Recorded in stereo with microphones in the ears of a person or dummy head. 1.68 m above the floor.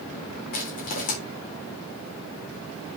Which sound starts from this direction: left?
Crushing, at 0.5 s.